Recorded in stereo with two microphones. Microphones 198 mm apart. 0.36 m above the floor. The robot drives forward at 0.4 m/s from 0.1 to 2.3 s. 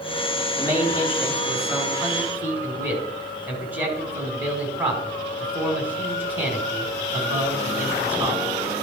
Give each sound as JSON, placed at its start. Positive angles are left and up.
{"t": 0.6, "sound": "a man speaking", "side_deg": -10, "distance_m": 3.5}